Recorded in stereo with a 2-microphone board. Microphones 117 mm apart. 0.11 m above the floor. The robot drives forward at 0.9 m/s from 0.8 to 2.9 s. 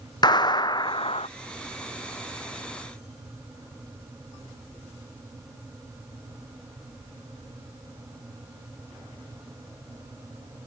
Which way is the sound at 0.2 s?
40° left (ahead or behind).